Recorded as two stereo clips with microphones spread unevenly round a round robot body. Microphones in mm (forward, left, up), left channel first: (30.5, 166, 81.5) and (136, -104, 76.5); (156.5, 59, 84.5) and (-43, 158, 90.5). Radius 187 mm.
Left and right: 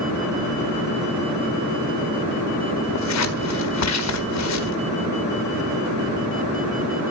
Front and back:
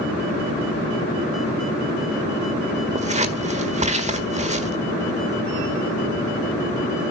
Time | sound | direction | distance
3.0 | scissors | 95° left | 1.7 m